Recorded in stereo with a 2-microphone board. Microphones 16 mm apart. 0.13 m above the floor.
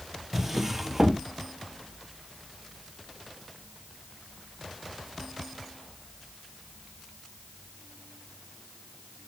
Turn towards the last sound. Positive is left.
turn(degrees=-20)  # may be behind; listen again after turning